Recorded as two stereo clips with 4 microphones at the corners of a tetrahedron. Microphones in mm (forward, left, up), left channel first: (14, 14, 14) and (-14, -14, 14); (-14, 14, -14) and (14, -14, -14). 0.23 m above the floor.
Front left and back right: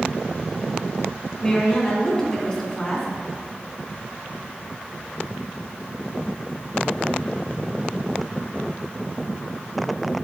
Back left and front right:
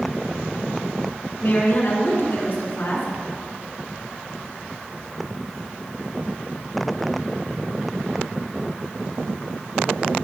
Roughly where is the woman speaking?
Behind left.